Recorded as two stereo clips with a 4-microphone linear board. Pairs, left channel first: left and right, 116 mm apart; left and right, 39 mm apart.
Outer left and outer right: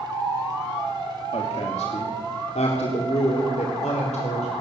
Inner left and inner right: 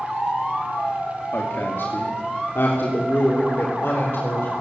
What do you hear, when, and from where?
1.3 s a woman speaking: 65° left (ahead or behind), 2.5 m; by 4.5 s 75° left (ahead or behind), 5 m